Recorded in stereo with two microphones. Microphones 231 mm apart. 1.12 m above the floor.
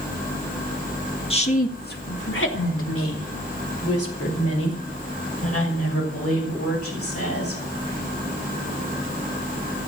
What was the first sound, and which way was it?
A woman speaking, 25° left (ahead or behind).